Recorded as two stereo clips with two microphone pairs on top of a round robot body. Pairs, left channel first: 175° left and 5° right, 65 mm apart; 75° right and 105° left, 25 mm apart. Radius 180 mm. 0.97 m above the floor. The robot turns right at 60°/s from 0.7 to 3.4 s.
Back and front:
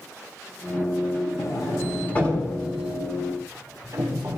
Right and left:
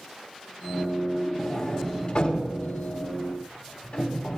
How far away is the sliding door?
About 3.5 m.